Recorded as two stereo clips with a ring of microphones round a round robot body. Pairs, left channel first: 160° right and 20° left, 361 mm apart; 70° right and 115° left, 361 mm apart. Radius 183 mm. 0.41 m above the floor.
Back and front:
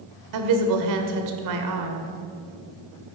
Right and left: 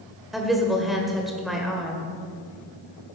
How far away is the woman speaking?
About 1.7 m.